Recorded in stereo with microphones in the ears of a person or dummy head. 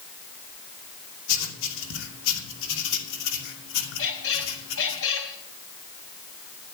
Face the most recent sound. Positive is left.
turn(degrees=75)  # may be behind; listen again after turning